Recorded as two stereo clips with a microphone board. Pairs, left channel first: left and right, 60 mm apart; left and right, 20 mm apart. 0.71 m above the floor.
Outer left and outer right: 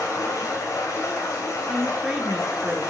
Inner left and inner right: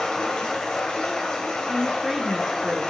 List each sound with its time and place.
0.0 s running water: 70° left (ahead or behind), 3 m
1.7 s a woman speaking: 5° right (ahead or behind), 1.0 m